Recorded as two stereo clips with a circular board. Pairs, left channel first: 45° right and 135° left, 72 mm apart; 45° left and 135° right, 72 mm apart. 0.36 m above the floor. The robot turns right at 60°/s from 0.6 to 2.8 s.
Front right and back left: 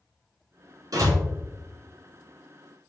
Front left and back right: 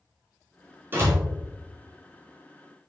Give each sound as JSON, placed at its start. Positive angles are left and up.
{"t": 0.9, "sound": "a door slam", "azimuth_deg": 165, "distance_m": 3.5}